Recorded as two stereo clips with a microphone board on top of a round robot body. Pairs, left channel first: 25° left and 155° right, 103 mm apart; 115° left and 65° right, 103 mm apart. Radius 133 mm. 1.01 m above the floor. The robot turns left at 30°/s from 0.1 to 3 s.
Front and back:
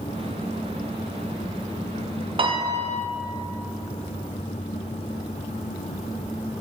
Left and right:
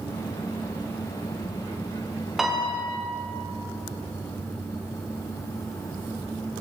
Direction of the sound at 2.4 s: 155° right.